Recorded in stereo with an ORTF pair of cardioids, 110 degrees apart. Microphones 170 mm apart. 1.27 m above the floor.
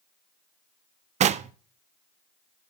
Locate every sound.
1.2 s knocking: 45° right, 0.5 m